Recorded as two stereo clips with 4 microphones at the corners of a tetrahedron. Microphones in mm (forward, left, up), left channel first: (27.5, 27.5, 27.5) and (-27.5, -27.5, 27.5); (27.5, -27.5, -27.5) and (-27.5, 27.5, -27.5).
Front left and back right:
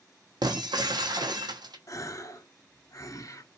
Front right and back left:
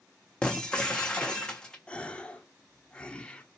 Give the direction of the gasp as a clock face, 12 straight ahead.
11 o'clock.